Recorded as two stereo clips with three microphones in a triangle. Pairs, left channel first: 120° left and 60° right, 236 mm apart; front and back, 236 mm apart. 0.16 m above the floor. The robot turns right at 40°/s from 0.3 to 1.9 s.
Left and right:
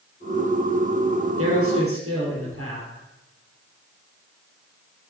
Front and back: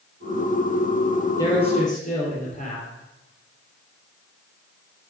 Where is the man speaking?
75° right, 3.5 m; by 2.9 s 55° right, 3.5 m.